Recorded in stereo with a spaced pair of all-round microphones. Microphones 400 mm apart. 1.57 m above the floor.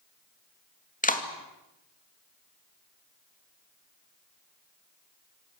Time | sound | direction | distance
1.0 | a clap | 20° left (ahead or behind) | 2.5 m